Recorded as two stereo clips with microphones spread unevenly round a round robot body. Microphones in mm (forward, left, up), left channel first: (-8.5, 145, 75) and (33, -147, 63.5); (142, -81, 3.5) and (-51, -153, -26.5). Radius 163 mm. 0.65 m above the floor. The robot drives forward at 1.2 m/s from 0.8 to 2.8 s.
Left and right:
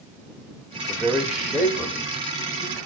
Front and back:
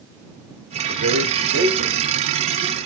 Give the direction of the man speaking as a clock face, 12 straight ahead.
6 o'clock.